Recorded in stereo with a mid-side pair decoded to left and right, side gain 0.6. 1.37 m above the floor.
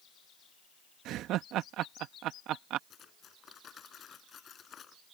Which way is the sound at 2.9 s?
40° left.